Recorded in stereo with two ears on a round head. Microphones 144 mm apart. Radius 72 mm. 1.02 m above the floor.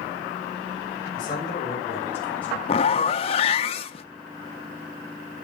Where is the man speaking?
30° left (ahead or behind), 4.5 m; by 2.6 s 5° left (ahead or behind), 4 m.